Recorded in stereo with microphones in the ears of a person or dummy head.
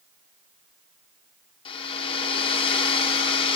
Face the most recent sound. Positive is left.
turn(degrees=25)  # may be behind; listen again after turning